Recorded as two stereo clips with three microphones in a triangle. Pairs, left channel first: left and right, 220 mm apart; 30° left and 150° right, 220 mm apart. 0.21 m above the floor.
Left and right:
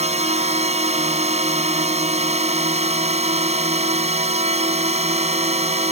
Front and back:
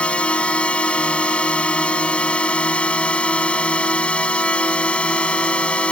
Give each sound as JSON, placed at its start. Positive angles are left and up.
{"t": 0.0, "sound": "a drone", "azimuth_deg": -50}